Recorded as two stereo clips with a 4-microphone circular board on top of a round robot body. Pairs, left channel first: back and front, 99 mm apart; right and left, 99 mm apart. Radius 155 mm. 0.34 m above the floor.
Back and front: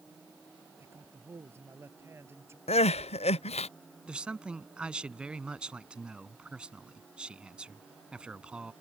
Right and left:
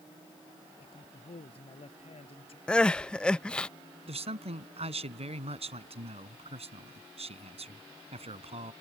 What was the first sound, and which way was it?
A man speaking, 65° right.